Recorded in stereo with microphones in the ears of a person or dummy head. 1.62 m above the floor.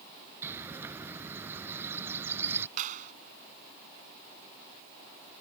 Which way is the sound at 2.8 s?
45° right (ahead or behind).